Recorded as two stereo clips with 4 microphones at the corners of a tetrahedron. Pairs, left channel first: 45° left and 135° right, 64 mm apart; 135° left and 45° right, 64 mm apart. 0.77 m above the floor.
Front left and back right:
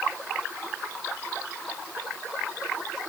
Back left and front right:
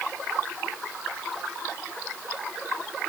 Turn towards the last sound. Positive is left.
No sound to turn to.